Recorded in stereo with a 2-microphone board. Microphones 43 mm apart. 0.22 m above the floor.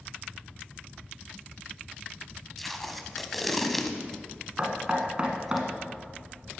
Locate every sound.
2.6 s tape being pulled: centre (ahead or behind), 0.9 m
4.6 s knocking: 25° right (ahead or behind), 1.6 m